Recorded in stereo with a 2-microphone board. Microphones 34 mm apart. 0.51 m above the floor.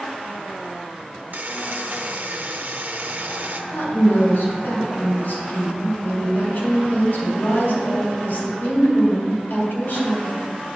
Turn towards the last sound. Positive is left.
turn(degrees=60)  # may be behind; listen again after turning